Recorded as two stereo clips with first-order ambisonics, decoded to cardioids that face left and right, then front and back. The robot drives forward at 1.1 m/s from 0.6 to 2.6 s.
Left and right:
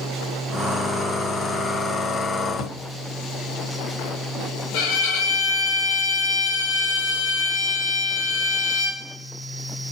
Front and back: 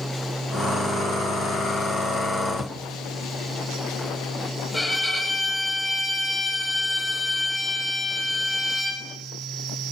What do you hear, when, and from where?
2.5 s a drawer: 85° left, 1.5 m; by 2.8 s 90° left, 1.5 m
4.7 s a violin: 95° left, 4.5 m